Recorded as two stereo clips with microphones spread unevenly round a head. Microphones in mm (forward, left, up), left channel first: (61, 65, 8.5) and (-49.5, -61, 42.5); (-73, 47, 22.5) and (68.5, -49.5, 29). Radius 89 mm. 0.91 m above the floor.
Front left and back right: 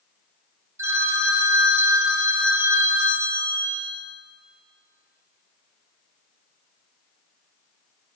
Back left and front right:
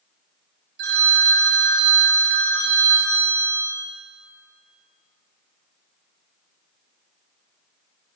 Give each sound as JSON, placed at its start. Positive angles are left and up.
{"t": 0.8, "sound": "a phone ringing", "azimuth_deg": -60, "distance_m": 1.8}